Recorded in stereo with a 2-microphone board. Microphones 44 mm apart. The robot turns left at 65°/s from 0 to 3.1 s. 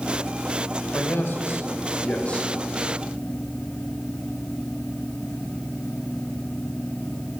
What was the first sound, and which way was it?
A man speaking, 125° left.